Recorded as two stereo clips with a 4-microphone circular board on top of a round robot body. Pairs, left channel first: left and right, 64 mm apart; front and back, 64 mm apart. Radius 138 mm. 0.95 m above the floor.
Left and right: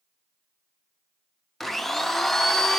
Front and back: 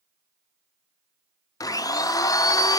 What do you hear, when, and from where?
1.6 s a blender: 5° left, 0.5 m